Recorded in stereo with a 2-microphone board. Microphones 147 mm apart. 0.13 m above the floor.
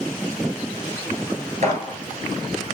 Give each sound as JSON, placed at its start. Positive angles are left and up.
{"t": 1.6, "sound": "a gunshot", "side_deg": -45, "distance_m": 4.5}